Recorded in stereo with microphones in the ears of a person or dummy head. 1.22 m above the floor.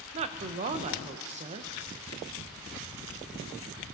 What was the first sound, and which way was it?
A woman speaking, 35° right (ahead or behind).